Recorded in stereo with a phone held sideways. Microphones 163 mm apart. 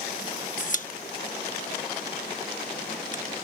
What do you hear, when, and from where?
0.6 s a pop: 50° left (ahead or behind)